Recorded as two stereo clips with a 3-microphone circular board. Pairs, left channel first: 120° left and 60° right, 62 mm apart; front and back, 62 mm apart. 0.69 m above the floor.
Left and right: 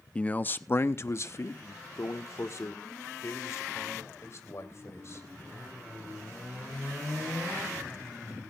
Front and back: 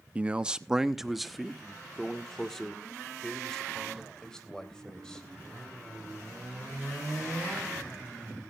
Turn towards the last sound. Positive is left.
turn(degrees=80)